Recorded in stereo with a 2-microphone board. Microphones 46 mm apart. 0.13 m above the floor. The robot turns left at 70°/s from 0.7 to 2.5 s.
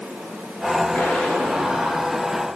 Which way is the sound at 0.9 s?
40° left.